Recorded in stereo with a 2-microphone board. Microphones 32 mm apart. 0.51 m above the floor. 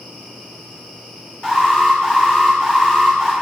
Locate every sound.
1.4 s an alarm: 35° left (ahead or behind), 4 m